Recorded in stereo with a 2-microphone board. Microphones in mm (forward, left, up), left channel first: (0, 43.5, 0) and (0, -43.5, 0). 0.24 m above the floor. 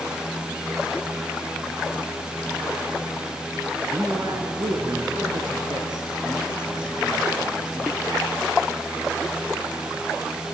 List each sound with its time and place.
3.9 s a man speaking: 50° right (ahead or behind), 2.5 m; by 8.1 s 65° right (ahead or behind), 5 m